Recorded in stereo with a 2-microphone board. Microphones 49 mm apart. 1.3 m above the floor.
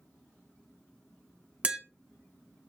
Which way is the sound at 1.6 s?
25° right (ahead or behind).